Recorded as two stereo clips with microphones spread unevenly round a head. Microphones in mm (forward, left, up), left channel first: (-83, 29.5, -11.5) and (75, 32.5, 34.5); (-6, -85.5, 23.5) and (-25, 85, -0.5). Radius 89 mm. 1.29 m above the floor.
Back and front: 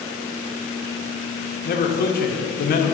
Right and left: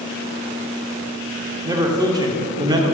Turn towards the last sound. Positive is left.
turn(degrees=160)